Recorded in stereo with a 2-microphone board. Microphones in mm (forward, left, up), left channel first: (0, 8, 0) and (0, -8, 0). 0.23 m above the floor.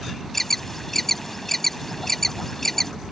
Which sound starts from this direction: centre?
An alarm, at 0.3 s.